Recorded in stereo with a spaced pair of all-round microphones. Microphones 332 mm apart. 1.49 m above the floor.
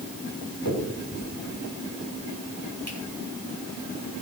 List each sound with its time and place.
0.7 s a finger snap: 60° left (ahead or behind), 6 m